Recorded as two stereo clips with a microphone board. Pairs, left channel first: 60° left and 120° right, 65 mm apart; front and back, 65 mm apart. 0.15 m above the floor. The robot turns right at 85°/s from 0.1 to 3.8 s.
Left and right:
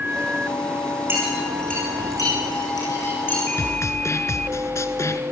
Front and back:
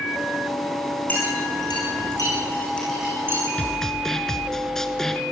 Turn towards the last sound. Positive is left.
turn(degrees=80)